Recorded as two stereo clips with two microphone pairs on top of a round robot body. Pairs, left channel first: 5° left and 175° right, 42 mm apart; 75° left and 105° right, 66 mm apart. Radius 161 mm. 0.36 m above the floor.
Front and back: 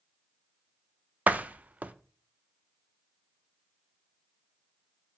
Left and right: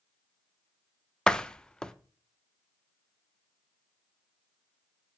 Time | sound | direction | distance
1.3 | a door slam | 145° left | 0.6 m